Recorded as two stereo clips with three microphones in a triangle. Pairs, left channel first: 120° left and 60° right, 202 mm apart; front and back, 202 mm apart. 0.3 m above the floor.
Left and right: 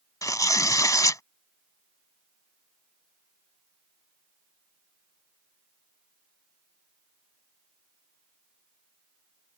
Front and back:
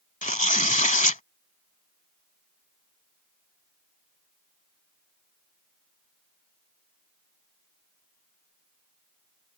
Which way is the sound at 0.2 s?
45° left.